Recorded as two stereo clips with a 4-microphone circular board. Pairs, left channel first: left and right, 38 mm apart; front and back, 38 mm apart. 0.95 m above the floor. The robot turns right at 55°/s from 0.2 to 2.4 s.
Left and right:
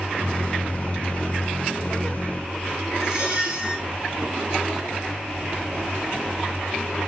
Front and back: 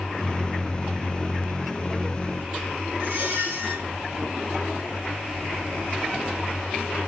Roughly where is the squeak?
Behind.